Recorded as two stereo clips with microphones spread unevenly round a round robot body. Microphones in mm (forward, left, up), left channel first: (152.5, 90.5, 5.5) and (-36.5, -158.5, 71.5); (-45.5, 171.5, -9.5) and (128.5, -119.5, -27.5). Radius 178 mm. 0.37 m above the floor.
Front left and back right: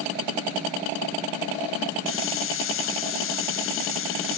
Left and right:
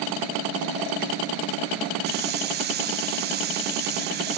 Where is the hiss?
5° left, 0.8 m.